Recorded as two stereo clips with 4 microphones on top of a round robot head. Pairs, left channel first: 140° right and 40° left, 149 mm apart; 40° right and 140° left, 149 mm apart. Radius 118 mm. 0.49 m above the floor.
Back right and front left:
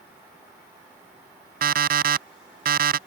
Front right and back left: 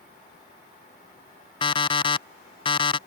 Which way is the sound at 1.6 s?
15° left.